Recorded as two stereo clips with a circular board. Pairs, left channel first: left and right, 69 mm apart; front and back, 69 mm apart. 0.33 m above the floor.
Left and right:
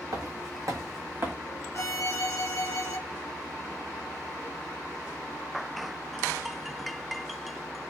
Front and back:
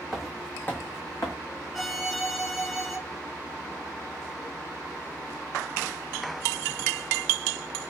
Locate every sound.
0.1 s footsteps: 95° right, 0.8 m; by 1.3 s 35° right, 1.2 m
1.7 s a violin: 90° left, 0.6 m